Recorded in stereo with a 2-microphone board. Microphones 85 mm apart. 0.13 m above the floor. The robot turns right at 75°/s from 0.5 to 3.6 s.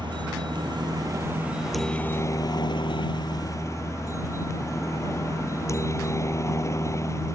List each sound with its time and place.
0.0 s a helicopter: 95° right; by 7.3 s 140° left